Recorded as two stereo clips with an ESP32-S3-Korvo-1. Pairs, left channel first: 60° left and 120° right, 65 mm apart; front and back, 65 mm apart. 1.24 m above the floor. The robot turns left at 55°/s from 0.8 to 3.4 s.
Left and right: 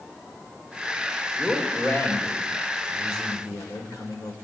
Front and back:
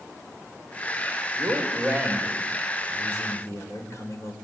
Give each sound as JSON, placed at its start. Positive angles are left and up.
{"t": 1.4, "sound": "a man speaking", "azimuth_deg": 155, "distance_m": 5.5}